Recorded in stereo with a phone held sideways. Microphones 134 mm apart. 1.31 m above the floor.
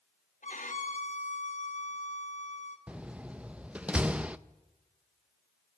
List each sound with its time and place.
0.4 s a violin: 70° left (ahead or behind), 1.3 m
2.9 s a door slam: 10° right (ahead or behind), 0.5 m